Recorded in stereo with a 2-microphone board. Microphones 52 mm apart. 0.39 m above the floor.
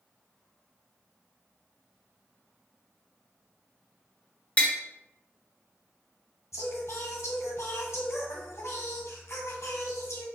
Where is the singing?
70° left (ahead or behind), 1.5 m.